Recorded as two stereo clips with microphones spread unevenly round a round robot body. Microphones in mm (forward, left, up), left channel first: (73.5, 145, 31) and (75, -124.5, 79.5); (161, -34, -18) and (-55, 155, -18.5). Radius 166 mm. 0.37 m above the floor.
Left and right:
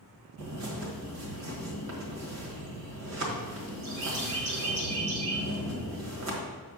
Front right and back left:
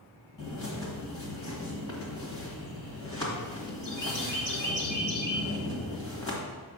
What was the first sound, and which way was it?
A bird, 120° right.